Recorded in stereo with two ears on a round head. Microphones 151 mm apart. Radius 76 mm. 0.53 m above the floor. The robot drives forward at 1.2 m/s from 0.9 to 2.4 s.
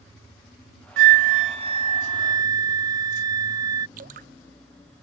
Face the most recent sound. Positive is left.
turn(degrees=-50)  # may be behind; listen again after turning